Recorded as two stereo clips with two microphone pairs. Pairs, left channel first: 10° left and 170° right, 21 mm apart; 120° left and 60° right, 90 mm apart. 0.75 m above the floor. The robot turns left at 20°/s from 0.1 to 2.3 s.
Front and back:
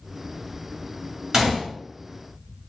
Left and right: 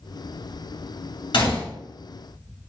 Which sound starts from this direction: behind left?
A gunshot, at 1.3 s.